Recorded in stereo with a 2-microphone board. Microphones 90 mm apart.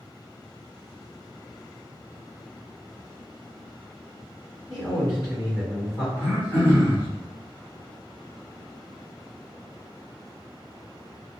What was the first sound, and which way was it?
A man speaking, 45° left (ahead or behind).